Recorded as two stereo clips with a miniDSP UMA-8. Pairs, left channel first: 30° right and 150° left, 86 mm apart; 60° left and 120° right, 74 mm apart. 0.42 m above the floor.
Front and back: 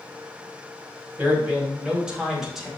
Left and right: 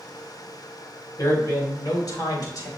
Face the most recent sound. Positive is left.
turn(degrees=65)